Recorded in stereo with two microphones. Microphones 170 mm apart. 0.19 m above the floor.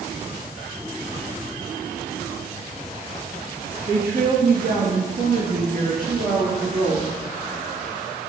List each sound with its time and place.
3.9 s a woman speaking: 65° right (ahead or behind), 3 m; by 7.1 s 55° right (ahead or behind), 4 m